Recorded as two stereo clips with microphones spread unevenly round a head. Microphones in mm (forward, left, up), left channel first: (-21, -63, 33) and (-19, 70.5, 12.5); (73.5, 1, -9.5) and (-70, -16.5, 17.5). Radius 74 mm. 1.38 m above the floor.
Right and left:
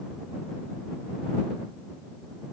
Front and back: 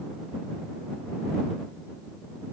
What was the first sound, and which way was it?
Only background noise.